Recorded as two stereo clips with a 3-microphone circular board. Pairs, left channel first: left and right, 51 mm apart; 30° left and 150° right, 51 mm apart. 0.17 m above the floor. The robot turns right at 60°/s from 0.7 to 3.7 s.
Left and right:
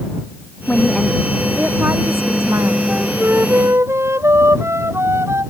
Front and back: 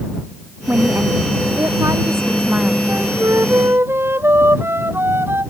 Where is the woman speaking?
155° left; by 2.8 s 80° right.